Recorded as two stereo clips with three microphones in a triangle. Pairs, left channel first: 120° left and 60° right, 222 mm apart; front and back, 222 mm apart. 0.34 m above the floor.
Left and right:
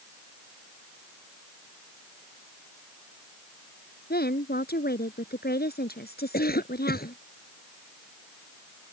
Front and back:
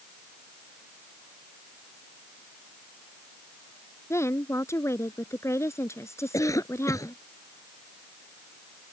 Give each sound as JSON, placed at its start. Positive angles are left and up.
{"t": 4.1, "sound": "a woman speaking", "azimuth_deg": 75}
{"t": 6.3, "sound": "a cough", "azimuth_deg": 75}